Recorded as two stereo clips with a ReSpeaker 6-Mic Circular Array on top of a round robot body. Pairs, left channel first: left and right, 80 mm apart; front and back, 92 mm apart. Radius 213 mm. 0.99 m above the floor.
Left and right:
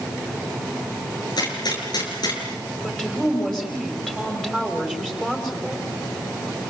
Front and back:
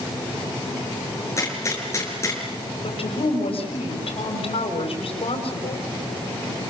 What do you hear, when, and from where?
1.4 s a gunshot: 60° left, 6.5 m
2.8 s a woman speaking: 5° left, 6 m